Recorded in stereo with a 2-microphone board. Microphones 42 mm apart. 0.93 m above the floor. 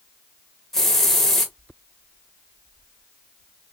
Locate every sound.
0.7 s a hiss: 10° left (ahead or behind), 1.0 m